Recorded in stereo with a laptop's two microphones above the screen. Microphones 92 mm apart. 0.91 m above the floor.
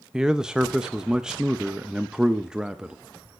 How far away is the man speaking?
About 0.6 m.